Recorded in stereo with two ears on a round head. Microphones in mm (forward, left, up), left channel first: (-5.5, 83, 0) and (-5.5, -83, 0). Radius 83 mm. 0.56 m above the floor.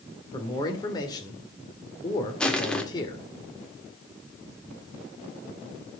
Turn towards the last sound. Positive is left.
turn(degrees=5)  # may be behind; listen again after turning